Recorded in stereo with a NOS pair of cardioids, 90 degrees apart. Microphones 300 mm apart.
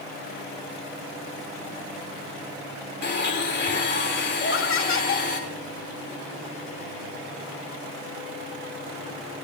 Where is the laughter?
45° left, 2 m.